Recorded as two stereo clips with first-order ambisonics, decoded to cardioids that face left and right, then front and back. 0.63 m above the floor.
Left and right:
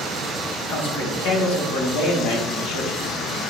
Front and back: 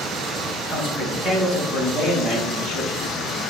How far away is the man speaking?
About 3 m.